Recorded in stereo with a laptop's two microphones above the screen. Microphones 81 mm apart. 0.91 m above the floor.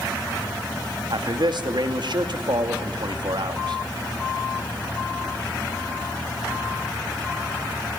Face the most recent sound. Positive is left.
turn(degrees=-65)  # may be behind; listen again after turning